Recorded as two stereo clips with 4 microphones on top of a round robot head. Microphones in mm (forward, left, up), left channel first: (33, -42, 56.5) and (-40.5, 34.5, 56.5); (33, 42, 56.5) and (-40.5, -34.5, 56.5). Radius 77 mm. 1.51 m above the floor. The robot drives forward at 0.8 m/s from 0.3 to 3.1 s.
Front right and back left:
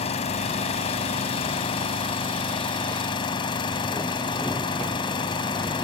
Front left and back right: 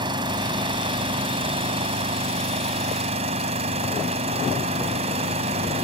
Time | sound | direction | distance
0.0 | an engine running | 80° right | ?